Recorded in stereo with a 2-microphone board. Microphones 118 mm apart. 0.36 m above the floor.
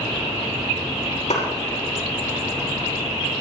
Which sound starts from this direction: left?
A clap, at 1.3 s.